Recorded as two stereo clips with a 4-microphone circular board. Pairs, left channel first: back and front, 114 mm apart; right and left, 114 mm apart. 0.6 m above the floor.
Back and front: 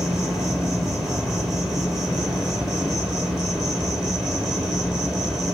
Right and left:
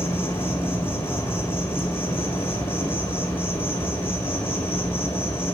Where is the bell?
I don't hear a bell.